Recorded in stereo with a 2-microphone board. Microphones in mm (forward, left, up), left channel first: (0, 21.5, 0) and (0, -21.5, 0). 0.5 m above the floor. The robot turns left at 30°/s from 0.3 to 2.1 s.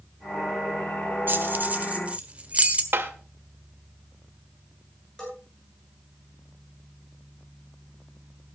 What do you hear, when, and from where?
1.3 s keys jangling: 50° right (ahead or behind), 1.4 m; by 2.8 s 30° right (ahead or behind), 1.4 m
2.9 s tapping: 55° right (ahead or behind), 1.7 m
5.2 s a bell: 15° left (ahead or behind), 9.5 m